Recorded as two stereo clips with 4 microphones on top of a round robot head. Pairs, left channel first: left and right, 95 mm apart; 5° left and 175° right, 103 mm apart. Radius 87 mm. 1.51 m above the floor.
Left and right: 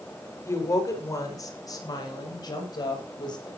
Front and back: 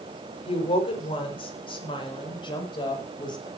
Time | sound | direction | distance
0.5 | a woman speaking | 30° left | 6 m